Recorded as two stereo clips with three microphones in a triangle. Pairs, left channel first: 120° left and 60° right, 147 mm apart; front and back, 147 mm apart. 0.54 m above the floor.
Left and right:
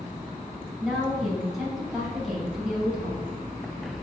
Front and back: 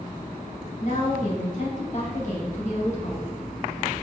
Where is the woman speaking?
30° left, 3 m.